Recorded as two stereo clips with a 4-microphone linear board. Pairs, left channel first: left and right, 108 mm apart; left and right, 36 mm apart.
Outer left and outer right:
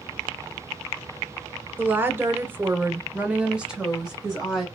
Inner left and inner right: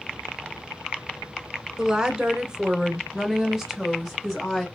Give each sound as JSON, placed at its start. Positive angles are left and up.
{"t": 1.8, "sound": "a woman speaking", "side_deg": -20, "distance_m": 0.9}